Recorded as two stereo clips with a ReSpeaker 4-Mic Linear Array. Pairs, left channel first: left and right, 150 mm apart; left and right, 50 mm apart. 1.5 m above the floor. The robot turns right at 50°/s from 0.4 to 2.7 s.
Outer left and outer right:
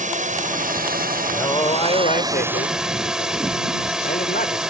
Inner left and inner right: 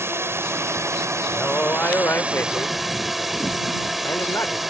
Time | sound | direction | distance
0.0 | a drone | 120° right | ?
1.3 | a man speaking | 15° left | ?